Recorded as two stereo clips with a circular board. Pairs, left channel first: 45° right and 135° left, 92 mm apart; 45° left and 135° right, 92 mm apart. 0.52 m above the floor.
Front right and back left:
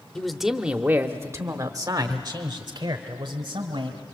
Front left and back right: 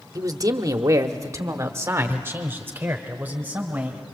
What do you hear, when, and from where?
0.1 s a man speaking: 125° right, 0.9 m; by 4.0 s 155° left, 2 m